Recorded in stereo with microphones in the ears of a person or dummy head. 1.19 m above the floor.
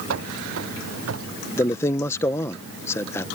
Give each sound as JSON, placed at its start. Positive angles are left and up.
{"t": 0.1, "sound": "running footsteps", "side_deg": -70}
{"t": 1.6, "sound": "a man speaking", "side_deg": 5}